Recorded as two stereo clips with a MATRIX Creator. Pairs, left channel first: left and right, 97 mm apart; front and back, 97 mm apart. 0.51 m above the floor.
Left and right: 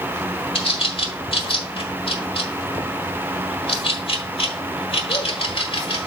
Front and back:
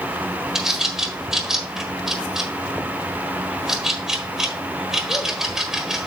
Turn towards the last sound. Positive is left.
turn(degrees=95)